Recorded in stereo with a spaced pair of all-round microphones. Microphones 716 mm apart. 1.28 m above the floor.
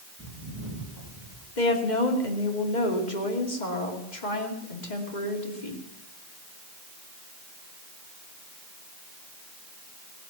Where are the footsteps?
25° right (ahead or behind), 7 m; by 1.5 s 30° right (ahead or behind), 6.5 m.